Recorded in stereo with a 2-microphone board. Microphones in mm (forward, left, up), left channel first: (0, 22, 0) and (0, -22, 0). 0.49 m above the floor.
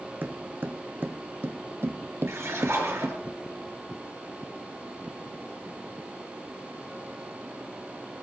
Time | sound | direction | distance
0.2 | footsteps | 45° right (ahead or behind) | 2.0 m
2.3 | a splash | 75° right (ahead or behind) | 6 m